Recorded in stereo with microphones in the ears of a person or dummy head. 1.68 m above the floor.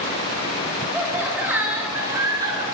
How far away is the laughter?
About 10 m.